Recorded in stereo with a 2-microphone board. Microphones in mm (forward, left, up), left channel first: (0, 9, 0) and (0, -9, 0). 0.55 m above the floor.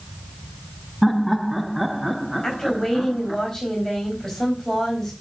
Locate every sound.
1.0 s laughter: 5° right (ahead or behind), 0.7 m
2.4 s a woman speaking: 20° left (ahead or behind), 4 m